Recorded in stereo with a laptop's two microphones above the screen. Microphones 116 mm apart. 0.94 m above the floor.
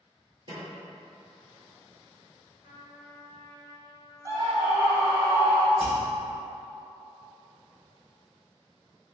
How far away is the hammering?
About 1.3 m.